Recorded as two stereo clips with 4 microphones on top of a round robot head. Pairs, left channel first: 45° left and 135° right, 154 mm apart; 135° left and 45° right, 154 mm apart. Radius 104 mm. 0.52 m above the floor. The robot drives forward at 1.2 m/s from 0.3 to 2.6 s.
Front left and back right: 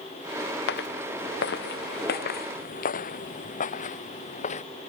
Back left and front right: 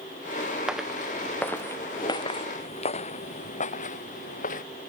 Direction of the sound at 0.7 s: 40° left.